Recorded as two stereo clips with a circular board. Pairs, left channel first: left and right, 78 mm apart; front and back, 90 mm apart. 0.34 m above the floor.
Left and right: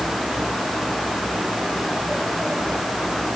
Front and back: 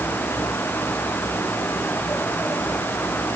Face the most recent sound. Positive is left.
No sound to turn to.